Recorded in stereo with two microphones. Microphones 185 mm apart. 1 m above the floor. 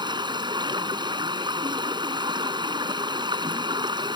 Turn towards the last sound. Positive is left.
turn(degrees=-25)  # may be behind; listen again after turning